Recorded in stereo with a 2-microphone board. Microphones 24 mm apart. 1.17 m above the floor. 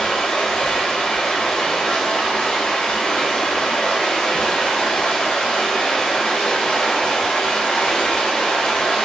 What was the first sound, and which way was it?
Running water, 80° left.